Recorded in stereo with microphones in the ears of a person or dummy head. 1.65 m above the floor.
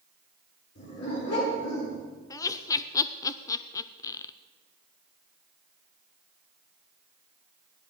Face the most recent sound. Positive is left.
turn(degrees=20)  # may be behind; listen again after turning